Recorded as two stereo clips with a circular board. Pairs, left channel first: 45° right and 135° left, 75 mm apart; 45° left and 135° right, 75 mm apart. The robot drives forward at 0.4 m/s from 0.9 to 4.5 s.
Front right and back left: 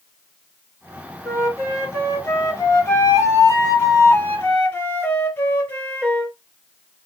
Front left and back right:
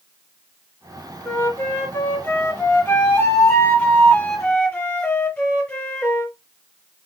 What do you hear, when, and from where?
1.2 s a flute: 5° right, 2.5 m; by 6.3 s 15° right, 1.6 m